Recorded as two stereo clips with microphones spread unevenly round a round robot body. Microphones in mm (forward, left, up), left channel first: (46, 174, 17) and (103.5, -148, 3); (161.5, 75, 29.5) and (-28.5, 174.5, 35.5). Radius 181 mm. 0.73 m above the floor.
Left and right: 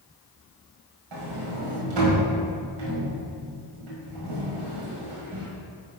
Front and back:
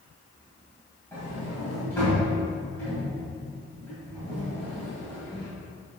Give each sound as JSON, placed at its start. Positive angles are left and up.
{"t": 1.1, "sound": "a sliding door", "azimuth_deg": -110, "distance_m": 1.7}